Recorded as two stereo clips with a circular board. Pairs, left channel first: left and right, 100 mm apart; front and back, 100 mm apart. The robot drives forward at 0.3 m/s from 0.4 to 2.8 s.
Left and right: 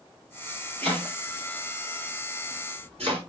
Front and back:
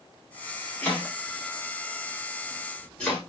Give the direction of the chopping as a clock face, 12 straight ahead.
2 o'clock.